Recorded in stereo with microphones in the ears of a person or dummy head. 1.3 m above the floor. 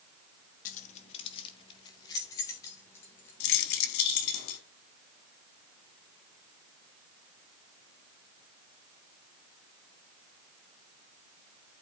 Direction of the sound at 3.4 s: 65° left (ahead or behind).